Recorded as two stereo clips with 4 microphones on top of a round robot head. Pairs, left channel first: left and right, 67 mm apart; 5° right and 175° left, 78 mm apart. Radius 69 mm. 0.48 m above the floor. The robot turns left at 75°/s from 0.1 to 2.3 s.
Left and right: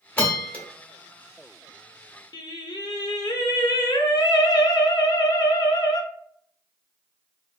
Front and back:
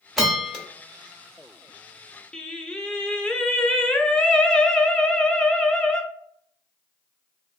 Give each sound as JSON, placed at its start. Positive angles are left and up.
{"t": 0.2, "sound": "a bell", "azimuth_deg": 85, "distance_m": 1.1}
{"t": 2.3, "sound": "singing", "azimuth_deg": 75, "distance_m": 0.5}